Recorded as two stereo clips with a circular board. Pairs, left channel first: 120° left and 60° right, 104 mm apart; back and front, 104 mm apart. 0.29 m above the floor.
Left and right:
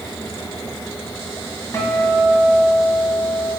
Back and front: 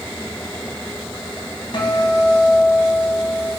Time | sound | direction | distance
1.7 | a guitar | 175° left | 2.5 m